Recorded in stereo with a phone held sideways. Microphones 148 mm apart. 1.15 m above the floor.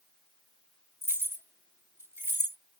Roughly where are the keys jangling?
Centre.